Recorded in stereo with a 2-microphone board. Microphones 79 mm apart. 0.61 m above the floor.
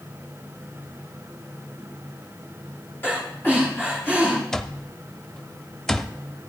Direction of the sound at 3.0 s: 25° left (ahead or behind).